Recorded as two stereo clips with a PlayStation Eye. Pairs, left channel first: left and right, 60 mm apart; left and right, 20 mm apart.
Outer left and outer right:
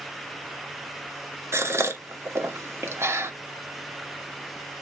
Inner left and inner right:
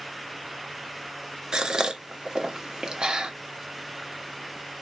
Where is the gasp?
45° right (ahead or behind), 0.9 m.